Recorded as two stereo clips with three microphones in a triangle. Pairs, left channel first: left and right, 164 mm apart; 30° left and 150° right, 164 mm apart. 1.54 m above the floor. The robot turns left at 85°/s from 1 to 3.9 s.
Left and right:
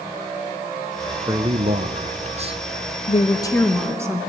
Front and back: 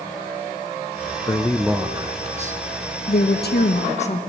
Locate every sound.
1.3 s a man speaking: 25° right, 0.6 m; by 2.6 s 140° right, 0.6 m
3.1 s a woman speaking: 55° left, 1.6 m; by 4.2 s 20° right, 1.6 m